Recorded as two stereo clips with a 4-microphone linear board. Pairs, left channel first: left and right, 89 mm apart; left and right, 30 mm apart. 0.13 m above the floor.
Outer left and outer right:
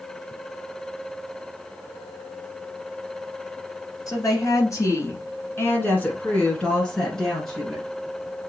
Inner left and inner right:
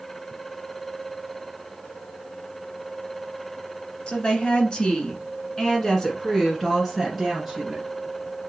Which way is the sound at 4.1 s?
40° left (ahead or behind).